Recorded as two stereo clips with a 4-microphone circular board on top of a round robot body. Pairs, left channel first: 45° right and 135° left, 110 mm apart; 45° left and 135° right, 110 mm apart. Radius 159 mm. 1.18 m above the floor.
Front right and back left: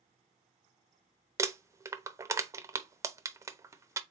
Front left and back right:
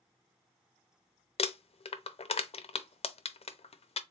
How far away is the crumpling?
About 0.6 m.